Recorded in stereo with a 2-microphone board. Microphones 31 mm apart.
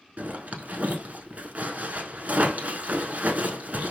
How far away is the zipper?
About 0.7 m.